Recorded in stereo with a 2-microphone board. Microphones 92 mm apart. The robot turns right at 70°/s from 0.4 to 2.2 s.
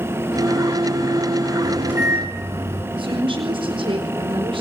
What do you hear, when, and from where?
1.6 s a microwave: straight behind, 5.5 m; by 2.8 s 140° right, 5.5 m
3.0 s a woman speaking: 70° right (ahead or behind), 4.5 m